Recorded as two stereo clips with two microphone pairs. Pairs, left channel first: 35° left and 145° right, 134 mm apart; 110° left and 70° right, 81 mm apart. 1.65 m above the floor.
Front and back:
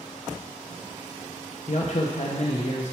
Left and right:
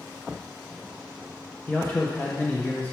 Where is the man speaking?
40° left, 0.9 m.